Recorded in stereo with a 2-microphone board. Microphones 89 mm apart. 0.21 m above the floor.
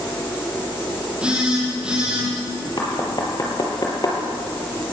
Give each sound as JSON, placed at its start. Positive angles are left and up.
{"t": 1.2, "sound": "a phone buzzing", "side_deg": -10, "distance_m": 9.0}
{"t": 2.8, "sound": "knocking", "side_deg": 45, "distance_m": 4.5}